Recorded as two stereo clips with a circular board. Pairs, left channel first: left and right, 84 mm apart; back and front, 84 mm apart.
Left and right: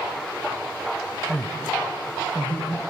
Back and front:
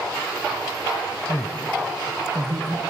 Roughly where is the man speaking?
Behind left.